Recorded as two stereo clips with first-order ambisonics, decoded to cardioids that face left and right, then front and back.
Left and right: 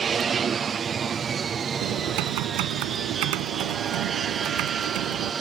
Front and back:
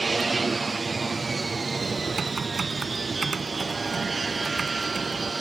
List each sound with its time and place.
0.0 s an aircraft: 115° right
1.8 s typing on a keyboard: 105° right